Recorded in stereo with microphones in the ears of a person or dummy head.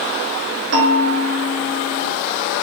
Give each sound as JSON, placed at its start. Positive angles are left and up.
{"t": 0.7, "sound": "a bell", "side_deg": -75, "distance_m": 4.0}